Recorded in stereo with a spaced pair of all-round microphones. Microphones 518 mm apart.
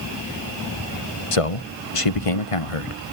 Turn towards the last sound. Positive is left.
turn(degrees=85)